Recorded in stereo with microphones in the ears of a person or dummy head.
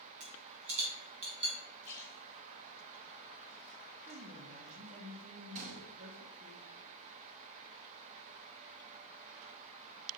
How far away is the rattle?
About 5 m.